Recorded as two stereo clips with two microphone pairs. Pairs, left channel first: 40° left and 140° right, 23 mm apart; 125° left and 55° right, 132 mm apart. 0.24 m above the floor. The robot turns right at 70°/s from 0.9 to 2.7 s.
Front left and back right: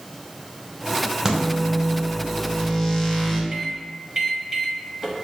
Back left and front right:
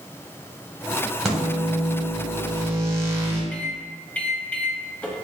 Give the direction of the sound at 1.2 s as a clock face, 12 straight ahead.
5 o'clock.